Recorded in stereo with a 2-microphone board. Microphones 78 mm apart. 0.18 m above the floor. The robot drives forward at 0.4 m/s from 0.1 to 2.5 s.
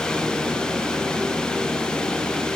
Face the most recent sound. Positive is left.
No sound to turn to.